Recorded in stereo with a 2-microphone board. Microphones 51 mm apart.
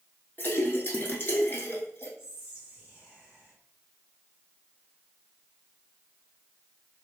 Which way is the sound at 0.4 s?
45° left (ahead or behind).